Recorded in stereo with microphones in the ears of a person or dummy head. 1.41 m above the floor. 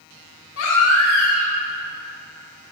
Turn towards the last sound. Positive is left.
turn(degrees=85)